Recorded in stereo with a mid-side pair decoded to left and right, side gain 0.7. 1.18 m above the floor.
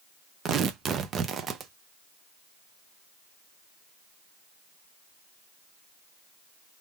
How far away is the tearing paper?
About 0.7 m.